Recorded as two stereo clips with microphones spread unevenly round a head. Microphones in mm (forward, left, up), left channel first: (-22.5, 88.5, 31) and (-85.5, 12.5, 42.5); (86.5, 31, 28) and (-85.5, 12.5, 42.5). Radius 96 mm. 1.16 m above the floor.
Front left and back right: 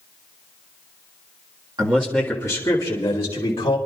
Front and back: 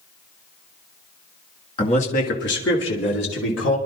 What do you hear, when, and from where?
1.8 s a man speaking: 60° right, 1.6 m; by 3.8 s 10° left, 3.5 m